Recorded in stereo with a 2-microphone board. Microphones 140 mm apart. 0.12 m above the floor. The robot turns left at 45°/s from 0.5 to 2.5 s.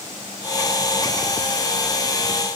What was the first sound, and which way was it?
Only background noise.